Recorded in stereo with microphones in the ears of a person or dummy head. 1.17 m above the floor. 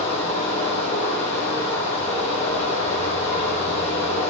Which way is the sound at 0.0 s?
35° left (ahead or behind).